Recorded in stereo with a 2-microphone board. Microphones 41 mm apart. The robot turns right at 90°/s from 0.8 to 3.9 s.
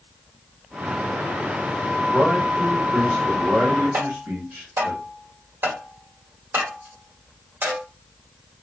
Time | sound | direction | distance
2.1 | a man speaking | 110° left | 2.5 m
3.9 | tapping | 60° right (ahead or behind) | 2 m